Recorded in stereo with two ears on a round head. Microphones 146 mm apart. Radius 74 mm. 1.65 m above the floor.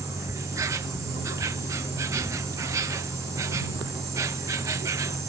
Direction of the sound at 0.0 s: 20° right (ahead or behind).